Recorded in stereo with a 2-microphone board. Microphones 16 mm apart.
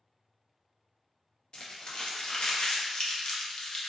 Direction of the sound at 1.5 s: 50° left (ahead or behind).